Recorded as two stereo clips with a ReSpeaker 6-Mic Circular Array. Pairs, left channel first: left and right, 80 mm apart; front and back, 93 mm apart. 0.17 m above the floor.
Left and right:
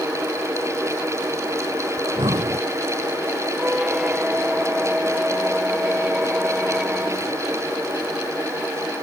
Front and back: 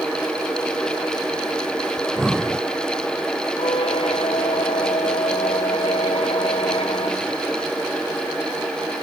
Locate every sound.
2.0 s breathing: 95° right
3.6 s a squeak: 10° right